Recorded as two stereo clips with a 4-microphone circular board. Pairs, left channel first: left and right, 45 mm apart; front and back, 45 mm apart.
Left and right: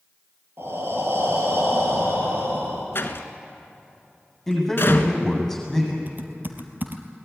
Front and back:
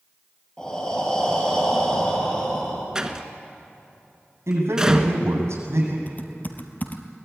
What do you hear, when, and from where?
0.6 s breathing: 70° right, 4.5 m
3.0 s a door slam: 110° left, 1.4 m
4.5 s a man speaking: straight behind, 7.5 m
6.1 s typing on a keyboard: 45° right, 1.8 m